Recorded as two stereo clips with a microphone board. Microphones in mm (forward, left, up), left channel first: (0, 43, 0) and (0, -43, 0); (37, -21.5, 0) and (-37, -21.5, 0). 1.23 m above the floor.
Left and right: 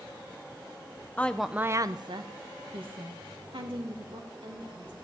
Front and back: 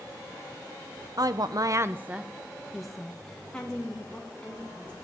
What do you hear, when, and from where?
1.2 s a woman speaking: 160° left, 0.7 m; by 4.9 s 75° right, 3.5 m